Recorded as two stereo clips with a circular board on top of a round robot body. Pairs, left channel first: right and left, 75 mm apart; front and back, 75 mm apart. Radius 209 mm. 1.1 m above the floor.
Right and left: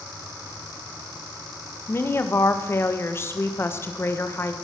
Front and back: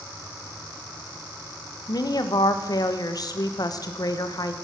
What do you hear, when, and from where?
1.9 s a woman speaking: 35° right, 1.6 m